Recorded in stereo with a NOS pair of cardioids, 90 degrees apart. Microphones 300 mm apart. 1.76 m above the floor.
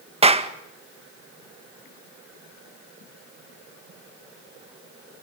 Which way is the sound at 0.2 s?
20° right.